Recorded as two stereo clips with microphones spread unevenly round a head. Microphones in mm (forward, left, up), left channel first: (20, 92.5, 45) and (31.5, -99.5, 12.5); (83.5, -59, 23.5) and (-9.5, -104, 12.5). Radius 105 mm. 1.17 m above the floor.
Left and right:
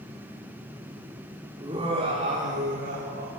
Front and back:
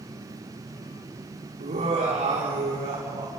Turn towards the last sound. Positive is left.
turn(degrees=-135)